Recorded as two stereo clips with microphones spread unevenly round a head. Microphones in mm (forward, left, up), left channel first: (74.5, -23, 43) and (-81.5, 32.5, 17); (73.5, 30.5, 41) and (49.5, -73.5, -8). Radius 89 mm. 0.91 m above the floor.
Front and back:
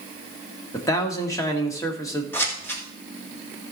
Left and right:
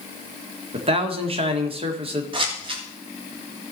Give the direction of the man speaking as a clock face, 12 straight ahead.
3 o'clock.